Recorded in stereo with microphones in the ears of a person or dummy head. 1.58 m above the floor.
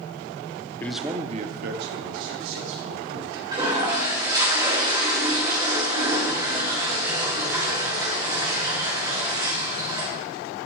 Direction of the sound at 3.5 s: 20° right (ahead or behind).